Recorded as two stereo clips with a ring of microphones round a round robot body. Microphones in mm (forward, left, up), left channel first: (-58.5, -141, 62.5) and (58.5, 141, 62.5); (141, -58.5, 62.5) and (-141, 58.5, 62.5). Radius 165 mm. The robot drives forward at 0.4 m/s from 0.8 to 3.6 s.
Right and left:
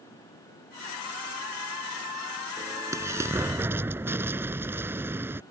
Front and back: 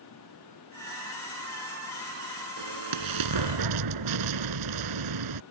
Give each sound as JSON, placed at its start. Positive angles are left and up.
{"t": 2.6, "sound": "an explosion", "azimuth_deg": 145}